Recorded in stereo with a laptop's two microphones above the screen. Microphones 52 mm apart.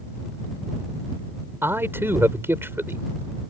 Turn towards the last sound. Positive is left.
turn(degrees=-50)  # may be behind; listen again after turning